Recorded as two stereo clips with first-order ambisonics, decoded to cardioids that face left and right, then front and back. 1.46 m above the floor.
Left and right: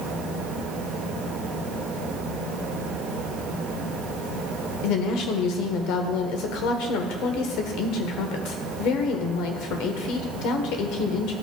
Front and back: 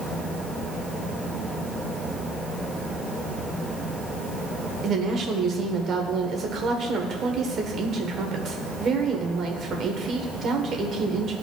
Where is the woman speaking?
120° left, 1.1 m.